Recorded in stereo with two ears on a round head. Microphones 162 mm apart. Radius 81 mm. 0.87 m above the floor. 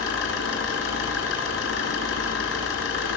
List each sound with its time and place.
0.0 s an engine running: 80° left, 5.5 m